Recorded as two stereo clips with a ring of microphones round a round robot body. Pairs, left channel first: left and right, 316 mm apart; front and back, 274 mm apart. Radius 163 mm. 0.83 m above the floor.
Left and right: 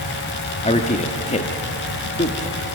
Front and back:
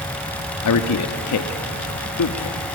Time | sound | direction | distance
0.6 | a man speaking | 20° left | 1.3 m